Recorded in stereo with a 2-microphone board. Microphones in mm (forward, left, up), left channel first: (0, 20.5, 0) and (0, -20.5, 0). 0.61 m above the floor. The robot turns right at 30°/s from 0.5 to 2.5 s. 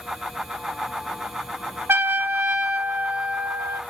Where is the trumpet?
65° right (ahead or behind), 0.8 m; by 3.8 s 45° right (ahead or behind), 0.8 m.